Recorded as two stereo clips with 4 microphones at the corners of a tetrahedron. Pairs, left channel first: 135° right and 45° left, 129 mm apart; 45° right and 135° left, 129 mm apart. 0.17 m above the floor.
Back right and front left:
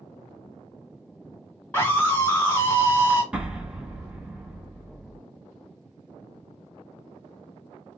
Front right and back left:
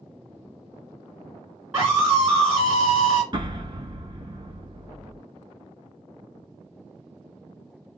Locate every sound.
1.7 s a scream: straight behind, 1.7 m
3.3 s an explosion: 125° left, 0.6 m